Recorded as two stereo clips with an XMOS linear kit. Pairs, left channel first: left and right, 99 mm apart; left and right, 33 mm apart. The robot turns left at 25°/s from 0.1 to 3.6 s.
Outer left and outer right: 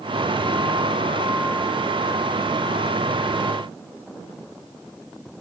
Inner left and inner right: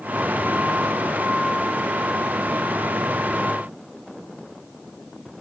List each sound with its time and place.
Only background noise.